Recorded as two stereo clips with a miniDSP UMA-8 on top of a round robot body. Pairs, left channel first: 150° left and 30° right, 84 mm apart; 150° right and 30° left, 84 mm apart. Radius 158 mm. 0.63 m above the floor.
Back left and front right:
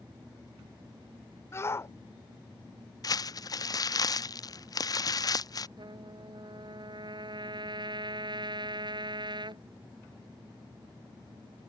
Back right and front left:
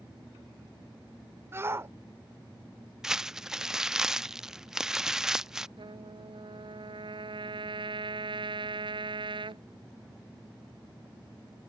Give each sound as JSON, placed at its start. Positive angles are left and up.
{"t": 1.5, "sound": "a shout", "azimuth_deg": 90}
{"t": 3.0, "sound": "crumpling", "azimuth_deg": 115}
{"t": 5.8, "sound": "a trumpet", "azimuth_deg": 5}